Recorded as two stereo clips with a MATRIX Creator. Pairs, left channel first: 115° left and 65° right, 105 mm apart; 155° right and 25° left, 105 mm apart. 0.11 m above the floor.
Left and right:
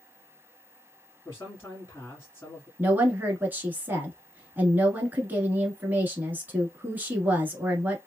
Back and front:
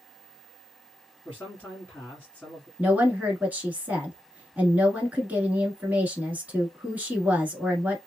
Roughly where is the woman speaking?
Ahead right.